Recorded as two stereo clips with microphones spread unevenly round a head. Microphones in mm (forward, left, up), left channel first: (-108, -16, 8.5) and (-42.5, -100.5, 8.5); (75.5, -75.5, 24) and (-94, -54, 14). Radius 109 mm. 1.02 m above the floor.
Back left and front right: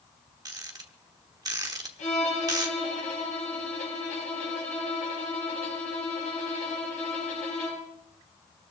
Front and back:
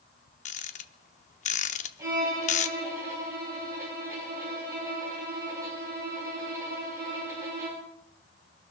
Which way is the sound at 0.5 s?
5° right.